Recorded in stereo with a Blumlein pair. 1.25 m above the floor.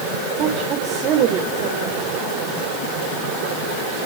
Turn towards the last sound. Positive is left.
turn(degrees=-35)